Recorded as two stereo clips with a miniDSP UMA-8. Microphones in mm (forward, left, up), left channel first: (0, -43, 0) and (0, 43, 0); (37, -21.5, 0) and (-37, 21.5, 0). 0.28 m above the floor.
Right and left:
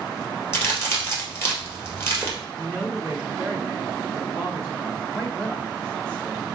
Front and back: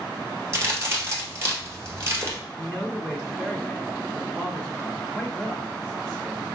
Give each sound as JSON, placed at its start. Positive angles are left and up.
{"t": 0.5, "sound": "a crack", "azimuth_deg": -150, "distance_m": 1.8}
{"t": 2.6, "sound": "a man speaking", "azimuth_deg": -105, "distance_m": 2.5}